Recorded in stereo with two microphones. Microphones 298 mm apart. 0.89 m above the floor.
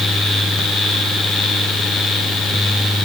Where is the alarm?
No alarm in this recording.